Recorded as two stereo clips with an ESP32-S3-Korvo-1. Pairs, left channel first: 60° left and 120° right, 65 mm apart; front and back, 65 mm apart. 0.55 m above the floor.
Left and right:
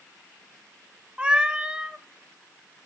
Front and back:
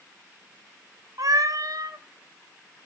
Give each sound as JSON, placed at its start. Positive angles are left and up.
{"t": 1.2, "sound": "a cat meowing", "azimuth_deg": 165, "distance_m": 1.1}